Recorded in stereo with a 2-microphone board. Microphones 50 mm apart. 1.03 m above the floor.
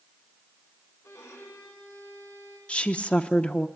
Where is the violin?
75° left (ahead or behind), 7 m.